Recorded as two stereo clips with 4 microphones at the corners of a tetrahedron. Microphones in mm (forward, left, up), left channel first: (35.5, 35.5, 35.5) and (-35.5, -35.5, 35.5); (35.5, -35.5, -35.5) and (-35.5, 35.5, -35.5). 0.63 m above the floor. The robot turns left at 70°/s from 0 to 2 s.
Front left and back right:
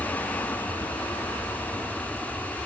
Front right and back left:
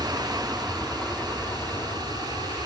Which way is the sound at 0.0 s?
100° left.